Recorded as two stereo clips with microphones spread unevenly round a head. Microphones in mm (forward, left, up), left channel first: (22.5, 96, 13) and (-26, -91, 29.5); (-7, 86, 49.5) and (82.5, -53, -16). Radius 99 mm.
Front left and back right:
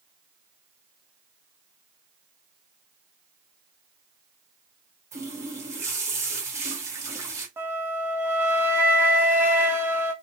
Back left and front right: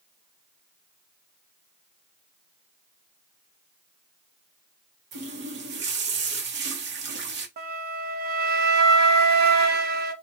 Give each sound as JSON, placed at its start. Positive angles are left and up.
{"t": 5.1, "sound": "a running tap", "azimuth_deg": -35, "distance_m": 0.9}
{"t": 7.6, "sound": "a flute", "azimuth_deg": -25, "distance_m": 0.6}